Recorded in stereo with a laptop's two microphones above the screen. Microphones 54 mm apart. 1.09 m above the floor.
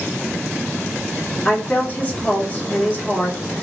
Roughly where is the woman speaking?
Left.